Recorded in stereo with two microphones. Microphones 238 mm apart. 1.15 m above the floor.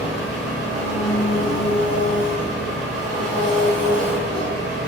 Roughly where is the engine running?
Centre.